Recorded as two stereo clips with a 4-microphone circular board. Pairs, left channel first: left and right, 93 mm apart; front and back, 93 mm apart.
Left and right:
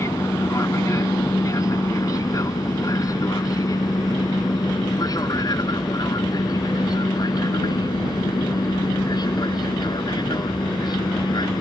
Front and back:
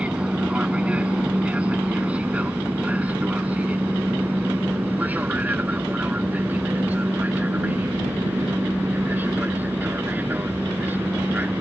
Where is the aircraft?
110° left; by 11.6 s 115° left.